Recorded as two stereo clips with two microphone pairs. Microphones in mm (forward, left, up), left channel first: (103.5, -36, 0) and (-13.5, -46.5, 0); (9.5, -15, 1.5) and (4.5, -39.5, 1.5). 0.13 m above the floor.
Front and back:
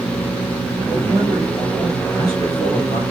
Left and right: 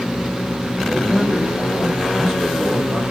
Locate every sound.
0.9 s a man speaking: 175° right, 2.5 m